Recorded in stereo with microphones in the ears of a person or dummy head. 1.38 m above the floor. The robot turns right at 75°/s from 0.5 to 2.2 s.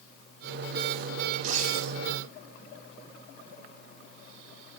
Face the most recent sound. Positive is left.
turn(degrees=-80)